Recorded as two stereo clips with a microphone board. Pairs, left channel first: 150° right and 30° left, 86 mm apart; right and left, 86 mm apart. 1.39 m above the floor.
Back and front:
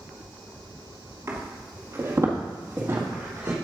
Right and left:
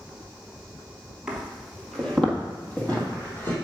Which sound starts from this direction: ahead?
Footsteps, at 1.3 s.